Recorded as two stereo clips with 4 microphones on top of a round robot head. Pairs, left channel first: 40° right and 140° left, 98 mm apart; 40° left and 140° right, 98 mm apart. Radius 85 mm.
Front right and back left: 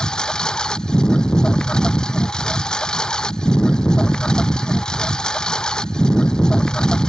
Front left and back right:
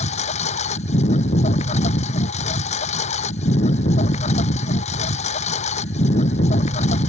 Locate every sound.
0.0 s a lawn mower: 40° left